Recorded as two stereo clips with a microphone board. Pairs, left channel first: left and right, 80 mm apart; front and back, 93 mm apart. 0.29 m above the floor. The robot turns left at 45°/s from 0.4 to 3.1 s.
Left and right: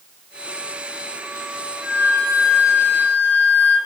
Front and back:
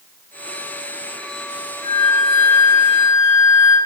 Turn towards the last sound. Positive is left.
turn(degrees=-105)